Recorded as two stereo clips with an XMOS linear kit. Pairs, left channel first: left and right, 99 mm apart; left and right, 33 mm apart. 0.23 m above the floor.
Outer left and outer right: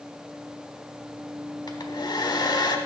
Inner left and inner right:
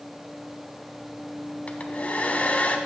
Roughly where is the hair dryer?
Left.